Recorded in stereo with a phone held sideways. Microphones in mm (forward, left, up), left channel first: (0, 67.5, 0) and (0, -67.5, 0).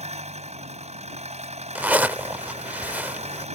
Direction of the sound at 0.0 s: 60° right (ahead or behind).